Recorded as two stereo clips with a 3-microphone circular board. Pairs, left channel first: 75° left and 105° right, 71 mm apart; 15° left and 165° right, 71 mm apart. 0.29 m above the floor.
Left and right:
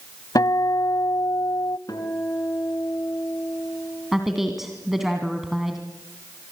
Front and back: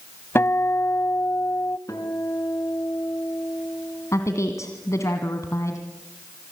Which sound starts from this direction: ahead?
A woman speaking, at 4.1 s.